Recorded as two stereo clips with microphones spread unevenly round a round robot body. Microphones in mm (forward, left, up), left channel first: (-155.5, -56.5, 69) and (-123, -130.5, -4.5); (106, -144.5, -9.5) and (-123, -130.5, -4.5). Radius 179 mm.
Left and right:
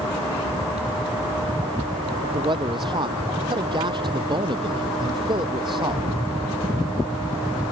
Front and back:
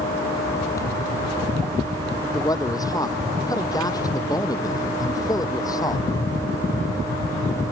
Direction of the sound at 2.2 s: 80° right.